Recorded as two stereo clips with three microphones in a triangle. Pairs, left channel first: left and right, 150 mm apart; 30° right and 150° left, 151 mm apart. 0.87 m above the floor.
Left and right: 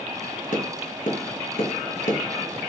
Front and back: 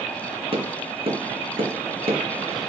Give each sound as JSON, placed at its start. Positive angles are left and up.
{"t": 0.5, "sound": "tapping", "azimuth_deg": 105, "distance_m": 2.5}